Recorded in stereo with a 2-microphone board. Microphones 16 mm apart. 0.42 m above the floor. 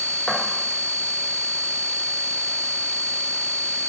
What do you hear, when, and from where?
0.3 s footsteps: 55° left (ahead or behind), 1.2 m